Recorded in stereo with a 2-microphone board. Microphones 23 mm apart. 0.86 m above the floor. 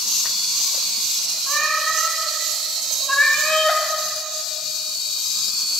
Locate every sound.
1.5 s a cat meowing: 15° left (ahead or behind), 3.5 m; by 3.8 s 45° left (ahead or behind), 1.6 m